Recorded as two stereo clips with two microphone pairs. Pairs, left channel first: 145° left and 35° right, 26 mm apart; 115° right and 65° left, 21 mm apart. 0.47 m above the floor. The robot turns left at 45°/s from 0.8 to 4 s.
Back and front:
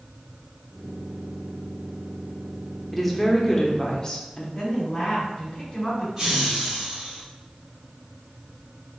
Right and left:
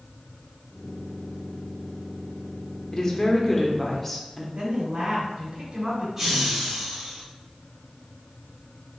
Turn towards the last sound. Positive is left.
turn(degrees=5)